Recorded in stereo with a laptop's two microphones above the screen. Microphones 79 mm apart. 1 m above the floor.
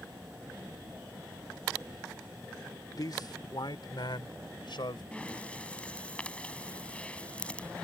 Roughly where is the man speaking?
Left.